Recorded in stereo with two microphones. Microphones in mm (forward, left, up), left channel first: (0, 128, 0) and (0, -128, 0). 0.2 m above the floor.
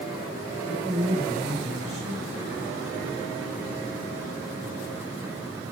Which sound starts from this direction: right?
A man speaking, at 0.7 s.